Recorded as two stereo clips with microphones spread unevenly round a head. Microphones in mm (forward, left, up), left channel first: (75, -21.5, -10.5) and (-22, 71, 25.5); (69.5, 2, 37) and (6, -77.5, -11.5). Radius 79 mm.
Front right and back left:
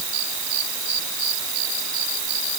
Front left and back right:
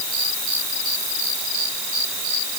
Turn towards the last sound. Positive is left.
No sound to turn to.